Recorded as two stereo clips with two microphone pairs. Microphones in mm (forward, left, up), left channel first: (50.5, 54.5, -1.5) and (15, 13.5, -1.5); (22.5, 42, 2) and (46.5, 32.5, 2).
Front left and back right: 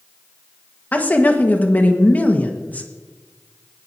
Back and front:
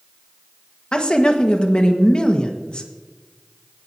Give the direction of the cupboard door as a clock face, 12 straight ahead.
I don't hear a cupboard door.